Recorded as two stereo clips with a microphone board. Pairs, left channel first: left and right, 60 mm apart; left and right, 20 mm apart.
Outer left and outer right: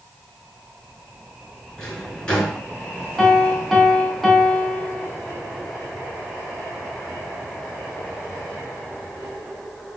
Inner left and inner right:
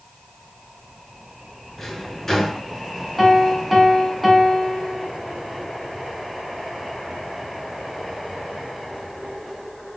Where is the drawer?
20° left (ahead or behind), 4.5 m.